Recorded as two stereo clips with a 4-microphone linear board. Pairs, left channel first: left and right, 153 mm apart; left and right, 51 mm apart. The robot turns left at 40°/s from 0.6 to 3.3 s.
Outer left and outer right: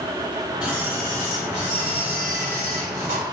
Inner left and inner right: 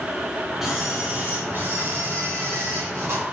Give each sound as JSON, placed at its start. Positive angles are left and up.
{"t": 0.6, "sound": "a camera shutter", "azimuth_deg": -10, "distance_m": 3.0}